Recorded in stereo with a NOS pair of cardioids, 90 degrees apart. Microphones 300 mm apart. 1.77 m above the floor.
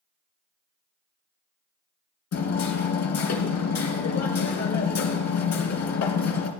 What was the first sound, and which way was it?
Hammering, 65° left.